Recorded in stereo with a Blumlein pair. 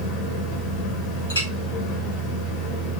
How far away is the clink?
About 2.5 m.